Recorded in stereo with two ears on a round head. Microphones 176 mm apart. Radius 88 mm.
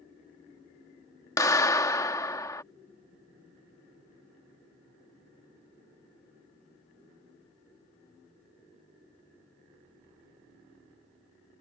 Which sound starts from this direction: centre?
A clap, at 1.4 s.